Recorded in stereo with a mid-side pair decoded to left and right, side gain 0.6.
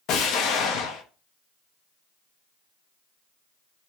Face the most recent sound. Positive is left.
turn(degrees=65)